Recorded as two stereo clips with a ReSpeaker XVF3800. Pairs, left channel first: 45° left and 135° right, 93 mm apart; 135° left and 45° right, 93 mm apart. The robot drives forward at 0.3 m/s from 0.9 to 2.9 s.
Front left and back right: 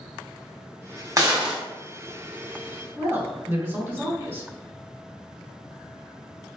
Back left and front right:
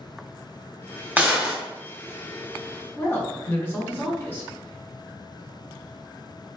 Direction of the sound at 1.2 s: 105° right.